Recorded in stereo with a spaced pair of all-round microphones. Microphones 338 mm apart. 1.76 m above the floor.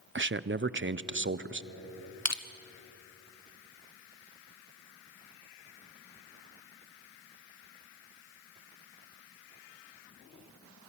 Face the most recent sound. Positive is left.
turn(degrees=50)  # may be behind; listen again after turning